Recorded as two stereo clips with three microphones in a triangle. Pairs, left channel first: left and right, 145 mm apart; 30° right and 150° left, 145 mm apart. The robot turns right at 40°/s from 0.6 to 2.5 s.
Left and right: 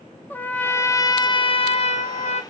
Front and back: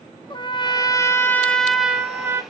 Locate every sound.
0.3 s a trumpet: 15° left, 0.7 m; by 2.4 s 90° left, 0.7 m